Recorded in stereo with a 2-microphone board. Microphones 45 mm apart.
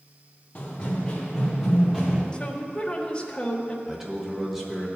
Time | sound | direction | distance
0.6 | running footsteps | 25° left (ahead or behind) | 3 m
2.3 | a woman speaking | 20° left (ahead or behind) | 1.3 m
3.9 | a man speaking | 10° right (ahead or behind) | 1.9 m